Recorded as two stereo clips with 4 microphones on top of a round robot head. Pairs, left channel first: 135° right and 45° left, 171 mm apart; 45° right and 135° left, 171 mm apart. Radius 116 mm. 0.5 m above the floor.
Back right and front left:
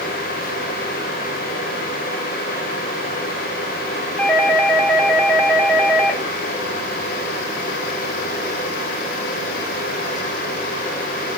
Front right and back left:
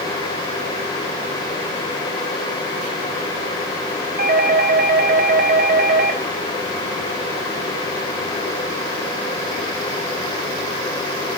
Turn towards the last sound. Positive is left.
turn(degrees=145)